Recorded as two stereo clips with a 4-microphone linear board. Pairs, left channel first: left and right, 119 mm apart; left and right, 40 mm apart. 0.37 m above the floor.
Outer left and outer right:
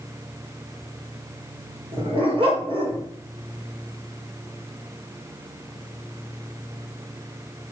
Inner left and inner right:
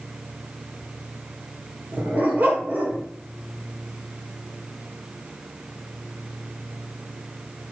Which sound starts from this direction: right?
A dog barking, at 1.9 s.